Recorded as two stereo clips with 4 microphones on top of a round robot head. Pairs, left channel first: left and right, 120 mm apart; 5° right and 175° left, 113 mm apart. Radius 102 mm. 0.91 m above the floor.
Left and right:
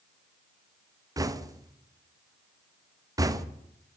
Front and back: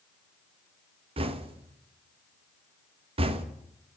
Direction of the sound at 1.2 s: 150° right.